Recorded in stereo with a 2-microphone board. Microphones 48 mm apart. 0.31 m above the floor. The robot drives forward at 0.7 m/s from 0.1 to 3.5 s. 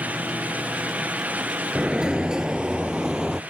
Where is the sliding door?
15° right (ahead or behind); by 3.4 s 10° right (ahead or behind).